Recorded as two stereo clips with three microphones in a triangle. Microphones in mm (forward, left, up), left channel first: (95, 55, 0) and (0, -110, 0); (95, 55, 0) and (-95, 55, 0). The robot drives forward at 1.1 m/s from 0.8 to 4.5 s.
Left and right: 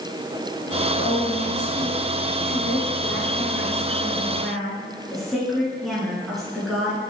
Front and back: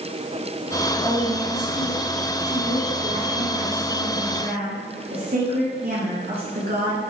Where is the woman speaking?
75° left, 2.5 m; by 7.0 s 150° left, 4 m.